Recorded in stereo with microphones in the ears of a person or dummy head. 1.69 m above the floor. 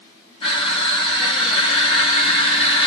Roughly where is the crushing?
Left.